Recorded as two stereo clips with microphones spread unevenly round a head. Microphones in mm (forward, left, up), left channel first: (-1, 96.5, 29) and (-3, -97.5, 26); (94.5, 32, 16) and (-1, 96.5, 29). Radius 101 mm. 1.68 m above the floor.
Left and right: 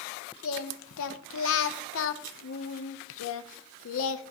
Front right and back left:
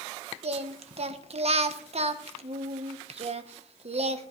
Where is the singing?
115° left, 0.8 m.